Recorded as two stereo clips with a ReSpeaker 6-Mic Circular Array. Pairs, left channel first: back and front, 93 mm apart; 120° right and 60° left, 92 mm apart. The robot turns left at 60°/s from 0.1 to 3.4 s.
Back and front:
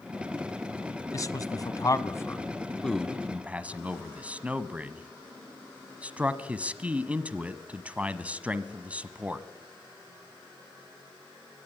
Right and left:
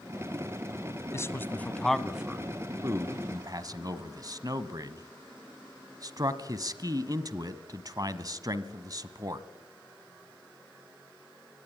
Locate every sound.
1.1 s a man speaking: 155° right, 1.2 m; by 9.5 s 70° left, 1.2 m